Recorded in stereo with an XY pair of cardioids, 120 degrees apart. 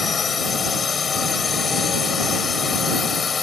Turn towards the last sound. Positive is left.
turn(degrees=35)